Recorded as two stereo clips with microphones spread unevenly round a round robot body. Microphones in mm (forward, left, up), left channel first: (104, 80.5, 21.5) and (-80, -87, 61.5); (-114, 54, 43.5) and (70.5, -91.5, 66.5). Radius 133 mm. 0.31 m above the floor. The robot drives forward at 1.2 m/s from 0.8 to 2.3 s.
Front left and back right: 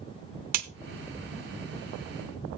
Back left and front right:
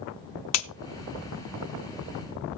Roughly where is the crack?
Behind.